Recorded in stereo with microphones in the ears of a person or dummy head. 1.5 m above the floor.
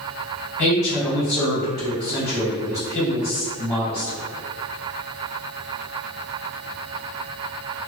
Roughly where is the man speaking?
Centre.